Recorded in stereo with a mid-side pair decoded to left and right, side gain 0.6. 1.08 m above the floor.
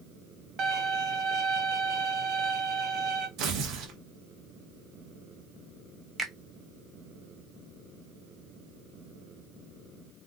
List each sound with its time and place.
0.6 s a violin: 50° right, 0.7 m
3.4 s tearing paper: 65° right, 0.9 m
6.2 s a finger snap: 15° right, 1.0 m